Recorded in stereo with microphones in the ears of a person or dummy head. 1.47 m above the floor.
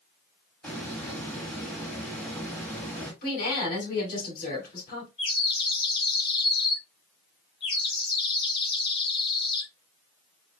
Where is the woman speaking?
55° left (ahead or behind), 2.5 m.